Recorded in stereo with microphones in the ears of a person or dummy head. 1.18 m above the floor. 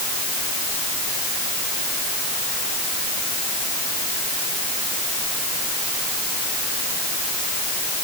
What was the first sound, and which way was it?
Only background noise.